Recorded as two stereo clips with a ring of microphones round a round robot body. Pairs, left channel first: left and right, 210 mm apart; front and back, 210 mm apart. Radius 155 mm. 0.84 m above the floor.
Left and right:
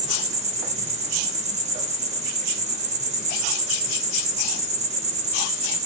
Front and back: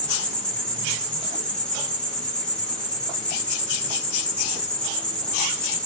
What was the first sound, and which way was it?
An insect, 80° right.